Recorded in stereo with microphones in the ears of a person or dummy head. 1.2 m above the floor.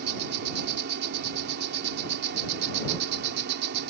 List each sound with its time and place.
0.0 s an insect: 55° right (ahead or behind)